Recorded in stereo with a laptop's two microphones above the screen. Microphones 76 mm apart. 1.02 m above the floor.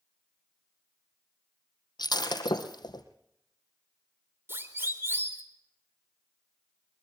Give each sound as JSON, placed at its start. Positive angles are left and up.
{"t": 2.0, "sound": "breaking glass", "side_deg": 70, "distance_m": 3.0}
{"t": 4.5, "sound": "a siren", "side_deg": -30, "distance_m": 3.5}